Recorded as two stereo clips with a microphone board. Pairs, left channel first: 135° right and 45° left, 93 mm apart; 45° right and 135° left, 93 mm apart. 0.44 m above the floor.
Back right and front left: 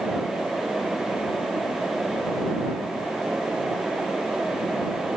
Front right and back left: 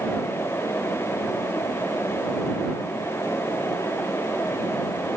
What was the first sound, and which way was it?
Only background noise.